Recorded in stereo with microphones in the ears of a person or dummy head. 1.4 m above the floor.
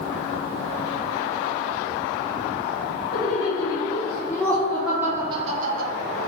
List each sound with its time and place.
3.1 s laughter: 30° left (ahead or behind), 1.8 m; by 5.9 s 55° right (ahead or behind), 0.6 m